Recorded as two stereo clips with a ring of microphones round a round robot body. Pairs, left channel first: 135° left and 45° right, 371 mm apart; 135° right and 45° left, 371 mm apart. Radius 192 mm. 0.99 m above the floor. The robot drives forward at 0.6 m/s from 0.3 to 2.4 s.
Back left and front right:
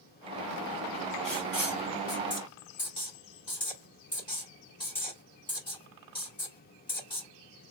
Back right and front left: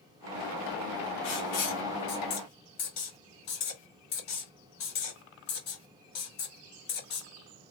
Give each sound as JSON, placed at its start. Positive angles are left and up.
{"t": 1.2, "sound": "writing", "azimuth_deg": -140, "distance_m": 2.5}